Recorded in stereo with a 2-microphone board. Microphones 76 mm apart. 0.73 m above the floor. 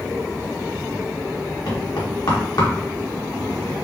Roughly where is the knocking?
Left.